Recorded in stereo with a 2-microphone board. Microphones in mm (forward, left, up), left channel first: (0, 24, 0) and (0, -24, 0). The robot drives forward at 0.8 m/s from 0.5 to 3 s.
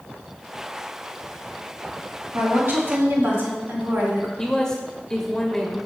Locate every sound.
2.3 s a woman speaking: 60° right (ahead or behind), 3 m; by 4.3 s 55° right (ahead or behind), 3.5 m
4.4 s a man speaking: 15° left (ahead or behind), 1.0 m